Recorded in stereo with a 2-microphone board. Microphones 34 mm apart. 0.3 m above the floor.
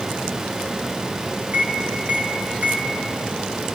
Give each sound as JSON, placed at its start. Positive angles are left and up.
{"t": 1.5, "sound": "a microwave", "side_deg": -50, "distance_m": 3.5}